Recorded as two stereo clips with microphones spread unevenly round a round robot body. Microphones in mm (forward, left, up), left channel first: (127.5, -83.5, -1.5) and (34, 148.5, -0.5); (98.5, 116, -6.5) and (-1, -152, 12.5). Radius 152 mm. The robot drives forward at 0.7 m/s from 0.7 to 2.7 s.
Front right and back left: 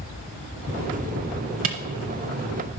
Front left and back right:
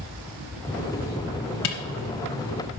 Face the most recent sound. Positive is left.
turn(degrees=140)